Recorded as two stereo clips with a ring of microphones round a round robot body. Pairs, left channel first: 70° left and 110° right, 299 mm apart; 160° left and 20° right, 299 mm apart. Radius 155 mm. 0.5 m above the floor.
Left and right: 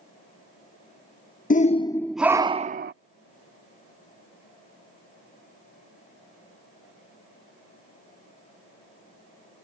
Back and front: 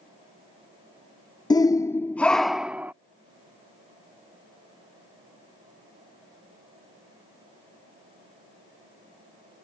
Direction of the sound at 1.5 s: 95° left.